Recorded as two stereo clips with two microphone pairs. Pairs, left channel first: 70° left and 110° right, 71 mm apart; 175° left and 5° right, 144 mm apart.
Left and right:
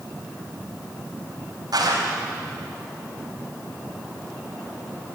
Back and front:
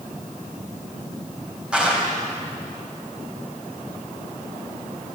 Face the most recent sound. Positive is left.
turn(degrees=-90)